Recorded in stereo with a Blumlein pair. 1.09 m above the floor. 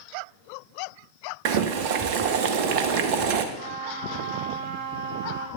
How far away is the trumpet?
About 4 m.